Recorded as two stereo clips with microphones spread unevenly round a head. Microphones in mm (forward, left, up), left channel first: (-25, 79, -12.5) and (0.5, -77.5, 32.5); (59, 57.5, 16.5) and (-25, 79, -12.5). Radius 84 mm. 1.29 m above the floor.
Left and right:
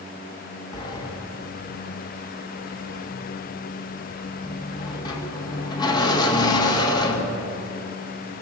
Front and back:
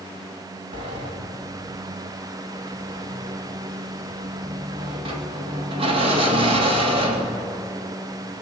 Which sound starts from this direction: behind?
A sliding door, at 0.7 s.